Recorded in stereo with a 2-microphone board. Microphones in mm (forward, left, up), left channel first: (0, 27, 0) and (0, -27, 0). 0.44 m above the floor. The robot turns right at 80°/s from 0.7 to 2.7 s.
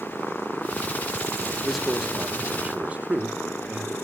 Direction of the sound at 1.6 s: 5° left (ahead or behind).